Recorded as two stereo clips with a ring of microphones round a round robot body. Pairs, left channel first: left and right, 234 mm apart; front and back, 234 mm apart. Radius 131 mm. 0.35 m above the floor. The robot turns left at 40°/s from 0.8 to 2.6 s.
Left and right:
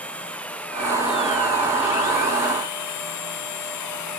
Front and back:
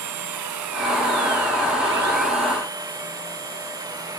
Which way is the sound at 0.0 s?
175° left.